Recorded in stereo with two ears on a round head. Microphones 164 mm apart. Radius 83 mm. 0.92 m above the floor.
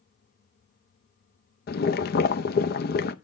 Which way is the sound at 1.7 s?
55° left (ahead or behind).